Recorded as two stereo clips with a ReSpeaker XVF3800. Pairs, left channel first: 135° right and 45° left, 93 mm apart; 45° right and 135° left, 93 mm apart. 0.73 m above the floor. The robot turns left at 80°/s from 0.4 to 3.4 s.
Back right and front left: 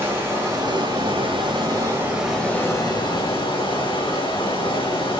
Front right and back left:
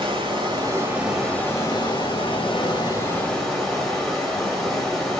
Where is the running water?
110° left, 3.5 m; by 5.2 s 130° right, 3.5 m.